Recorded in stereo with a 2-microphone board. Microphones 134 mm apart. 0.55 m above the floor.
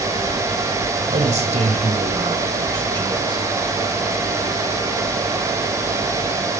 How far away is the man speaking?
About 3 m.